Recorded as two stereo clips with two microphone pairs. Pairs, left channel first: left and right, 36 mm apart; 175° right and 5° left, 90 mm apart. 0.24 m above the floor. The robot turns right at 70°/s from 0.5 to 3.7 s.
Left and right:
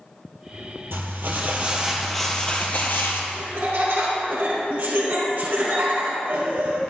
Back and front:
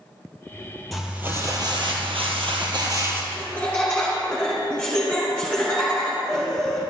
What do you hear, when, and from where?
0.9 s crumpling: 85° right, 1.9 m; by 3.2 s 75° left, 1.9 m
3.3 s laughter: 135° right, 2 m; by 6.8 s 110° right, 2 m